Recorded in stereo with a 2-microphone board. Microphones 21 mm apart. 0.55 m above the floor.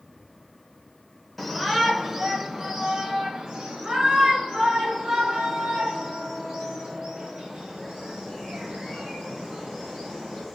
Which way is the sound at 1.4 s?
5° left (ahead or behind).